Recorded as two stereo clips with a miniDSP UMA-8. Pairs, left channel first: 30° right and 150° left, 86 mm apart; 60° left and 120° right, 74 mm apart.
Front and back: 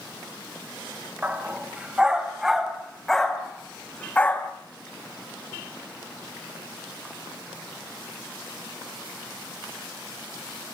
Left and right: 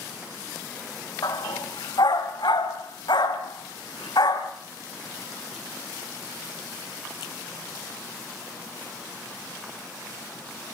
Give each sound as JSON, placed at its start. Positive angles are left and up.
{"t": 1.2, "sound": "a dog barking", "azimuth_deg": 80, "distance_m": 2.5}